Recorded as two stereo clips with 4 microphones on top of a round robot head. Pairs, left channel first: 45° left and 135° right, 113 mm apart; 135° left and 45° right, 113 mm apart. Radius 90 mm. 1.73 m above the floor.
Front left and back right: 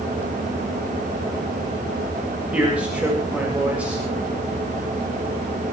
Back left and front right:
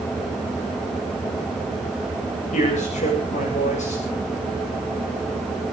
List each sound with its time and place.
2.5 s a man speaking: 145° left, 8 m